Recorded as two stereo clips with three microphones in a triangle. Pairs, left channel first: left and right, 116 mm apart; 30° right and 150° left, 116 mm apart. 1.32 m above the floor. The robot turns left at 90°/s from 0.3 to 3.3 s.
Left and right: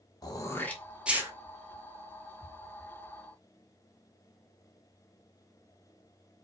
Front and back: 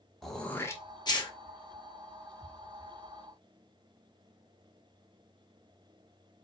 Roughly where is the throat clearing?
Ahead left.